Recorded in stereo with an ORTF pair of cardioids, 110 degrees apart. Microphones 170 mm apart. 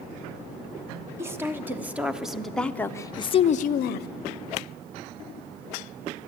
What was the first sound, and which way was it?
A woman speaking, 15° right.